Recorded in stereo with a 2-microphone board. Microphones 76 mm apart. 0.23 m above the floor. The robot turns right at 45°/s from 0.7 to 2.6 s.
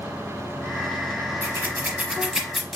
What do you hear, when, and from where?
1.4 s scissors: 35° right (ahead or behind), 0.8 m; by 2.8 s centre (ahead or behind), 0.8 m